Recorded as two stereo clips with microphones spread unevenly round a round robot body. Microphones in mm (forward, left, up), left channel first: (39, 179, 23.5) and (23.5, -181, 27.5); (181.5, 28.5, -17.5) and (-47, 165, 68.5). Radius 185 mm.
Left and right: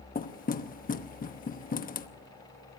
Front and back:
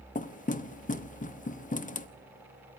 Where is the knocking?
20° left, 1.0 m.